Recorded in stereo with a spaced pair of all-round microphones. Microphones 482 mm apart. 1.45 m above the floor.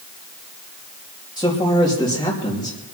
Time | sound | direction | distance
1.4 | a man speaking | 10° left (ahead or behind) | 3 m